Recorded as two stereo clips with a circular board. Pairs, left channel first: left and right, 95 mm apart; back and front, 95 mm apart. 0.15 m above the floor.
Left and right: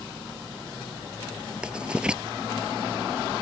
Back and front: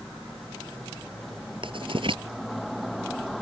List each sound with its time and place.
1.6 s writing: 10° right